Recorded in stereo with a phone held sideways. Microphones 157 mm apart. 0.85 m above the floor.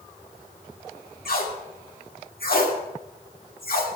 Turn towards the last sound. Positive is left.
turn(degrees=70)  # may be behind; listen again after turning